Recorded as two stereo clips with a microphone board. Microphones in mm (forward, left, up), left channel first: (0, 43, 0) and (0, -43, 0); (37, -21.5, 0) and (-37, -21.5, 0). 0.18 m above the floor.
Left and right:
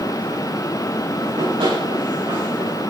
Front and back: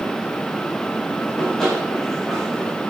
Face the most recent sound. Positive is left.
turn(degrees=-90)